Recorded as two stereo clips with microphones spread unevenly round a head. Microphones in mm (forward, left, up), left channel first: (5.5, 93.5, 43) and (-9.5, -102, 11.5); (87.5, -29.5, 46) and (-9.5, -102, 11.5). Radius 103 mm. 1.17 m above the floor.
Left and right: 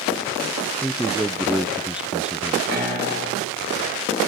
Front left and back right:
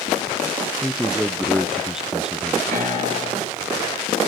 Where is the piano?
140° right, 8.5 m.